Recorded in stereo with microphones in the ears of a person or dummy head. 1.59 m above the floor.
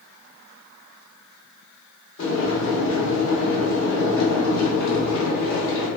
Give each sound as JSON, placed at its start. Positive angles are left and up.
{"t": 2.2, "sound": "boiling", "side_deg": 70, "distance_m": 1.3}